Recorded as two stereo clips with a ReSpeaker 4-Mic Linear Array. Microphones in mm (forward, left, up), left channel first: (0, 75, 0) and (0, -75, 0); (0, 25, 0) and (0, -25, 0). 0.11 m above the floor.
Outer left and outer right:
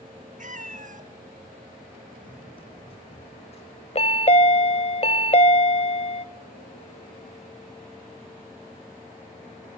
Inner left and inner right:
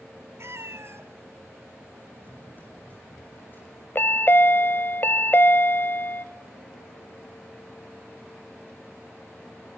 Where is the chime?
45° left (ahead or behind), 0.6 m.